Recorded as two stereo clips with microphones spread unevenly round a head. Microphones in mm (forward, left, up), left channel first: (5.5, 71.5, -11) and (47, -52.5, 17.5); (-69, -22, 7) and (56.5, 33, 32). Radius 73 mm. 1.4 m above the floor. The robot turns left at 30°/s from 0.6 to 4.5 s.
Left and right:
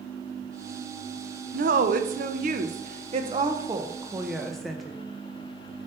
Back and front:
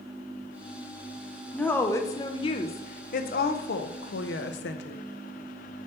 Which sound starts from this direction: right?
A woman speaking, at 1.5 s.